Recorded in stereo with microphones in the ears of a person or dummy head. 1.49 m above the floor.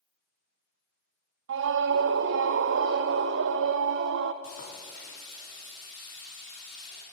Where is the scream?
70° right (ahead or behind), 0.8 m.